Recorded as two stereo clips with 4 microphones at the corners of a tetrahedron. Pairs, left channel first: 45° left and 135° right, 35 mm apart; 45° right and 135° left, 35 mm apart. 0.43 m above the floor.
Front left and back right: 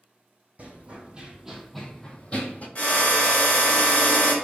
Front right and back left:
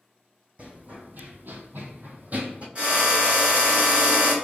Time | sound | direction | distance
0.6 | running footsteps | 175° right | 1.2 m
2.8 | a drill | 90° left | 2 m